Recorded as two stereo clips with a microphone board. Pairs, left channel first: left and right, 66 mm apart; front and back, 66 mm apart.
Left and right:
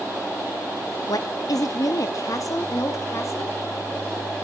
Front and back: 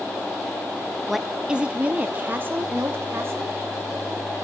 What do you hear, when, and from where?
1.1 s a woman speaking: 90° left, 0.8 m; by 3.5 s 130° left, 2 m